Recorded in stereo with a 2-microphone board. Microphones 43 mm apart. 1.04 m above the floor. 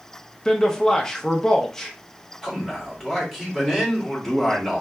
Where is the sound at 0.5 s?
15° left (ahead or behind), 0.6 m.